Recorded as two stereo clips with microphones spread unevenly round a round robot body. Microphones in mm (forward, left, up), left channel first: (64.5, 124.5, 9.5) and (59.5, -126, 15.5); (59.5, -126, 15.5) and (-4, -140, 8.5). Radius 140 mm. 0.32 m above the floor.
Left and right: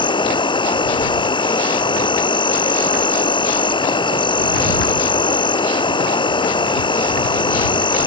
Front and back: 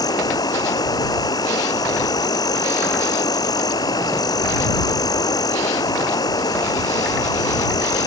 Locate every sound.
0.0 s an insect: 20° left